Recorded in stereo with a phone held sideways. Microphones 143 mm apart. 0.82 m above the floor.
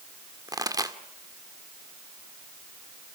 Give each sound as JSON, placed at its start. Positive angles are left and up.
{"t": 0.5, "sound": "a pop", "side_deg": -25, "distance_m": 1.8}